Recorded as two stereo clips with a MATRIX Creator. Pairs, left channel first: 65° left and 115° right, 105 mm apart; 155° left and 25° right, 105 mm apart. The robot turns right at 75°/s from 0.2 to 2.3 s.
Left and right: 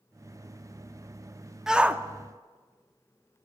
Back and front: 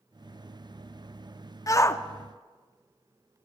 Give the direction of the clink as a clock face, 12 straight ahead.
I don't hear a clink.